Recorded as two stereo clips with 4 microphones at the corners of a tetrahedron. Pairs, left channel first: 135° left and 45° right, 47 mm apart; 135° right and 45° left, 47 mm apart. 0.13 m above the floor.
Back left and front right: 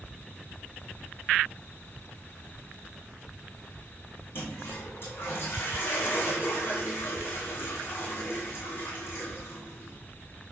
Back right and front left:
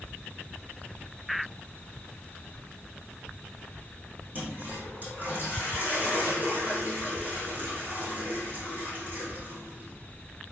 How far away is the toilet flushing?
About 4 m.